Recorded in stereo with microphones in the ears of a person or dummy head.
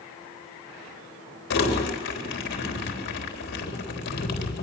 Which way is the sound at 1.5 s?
65° left (ahead or behind).